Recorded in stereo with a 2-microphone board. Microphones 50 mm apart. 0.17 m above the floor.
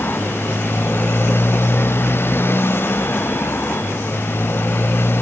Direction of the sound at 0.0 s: 50° left (ahead or behind).